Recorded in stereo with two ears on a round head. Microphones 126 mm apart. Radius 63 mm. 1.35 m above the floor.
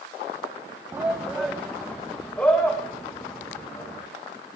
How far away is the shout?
About 0.9 m.